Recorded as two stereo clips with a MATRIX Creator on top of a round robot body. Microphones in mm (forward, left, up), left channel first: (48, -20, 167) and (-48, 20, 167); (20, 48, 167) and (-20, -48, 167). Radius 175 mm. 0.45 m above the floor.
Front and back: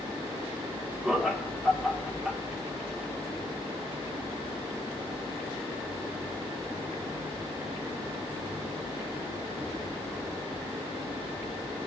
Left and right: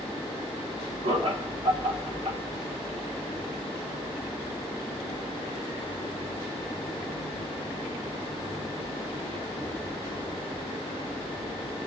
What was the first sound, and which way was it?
Laughter, 115° right.